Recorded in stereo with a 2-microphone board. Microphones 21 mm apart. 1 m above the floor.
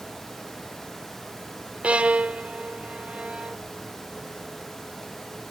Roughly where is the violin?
Right.